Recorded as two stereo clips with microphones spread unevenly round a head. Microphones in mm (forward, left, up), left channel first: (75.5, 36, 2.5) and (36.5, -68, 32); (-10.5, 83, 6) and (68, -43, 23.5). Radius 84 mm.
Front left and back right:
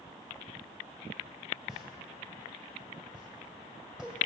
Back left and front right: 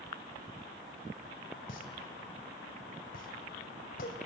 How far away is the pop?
About 2.5 m.